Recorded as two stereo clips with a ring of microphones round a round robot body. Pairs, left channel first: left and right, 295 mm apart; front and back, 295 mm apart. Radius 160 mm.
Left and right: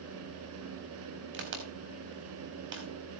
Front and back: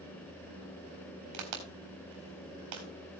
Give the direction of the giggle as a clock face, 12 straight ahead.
No giggle in this recording.